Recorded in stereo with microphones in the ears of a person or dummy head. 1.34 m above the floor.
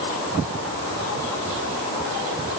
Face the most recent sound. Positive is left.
No sound to turn to.